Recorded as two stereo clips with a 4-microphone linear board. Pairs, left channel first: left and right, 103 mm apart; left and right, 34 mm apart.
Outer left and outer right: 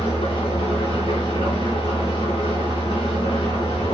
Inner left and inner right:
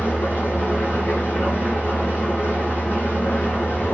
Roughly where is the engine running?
Left.